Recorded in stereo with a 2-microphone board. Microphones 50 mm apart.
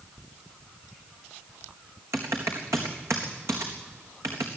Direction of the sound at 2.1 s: 70° right (ahead or behind).